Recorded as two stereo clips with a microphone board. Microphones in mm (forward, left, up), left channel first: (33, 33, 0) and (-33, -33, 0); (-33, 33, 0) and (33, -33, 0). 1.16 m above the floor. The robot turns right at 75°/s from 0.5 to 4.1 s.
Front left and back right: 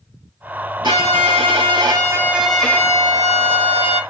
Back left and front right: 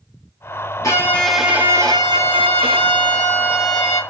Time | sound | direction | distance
0.8 | a violin | 170° right | 1.8 m